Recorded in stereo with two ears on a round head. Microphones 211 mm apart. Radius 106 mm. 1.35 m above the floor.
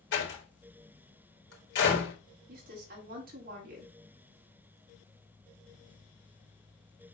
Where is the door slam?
55° left (ahead or behind), 3.5 m.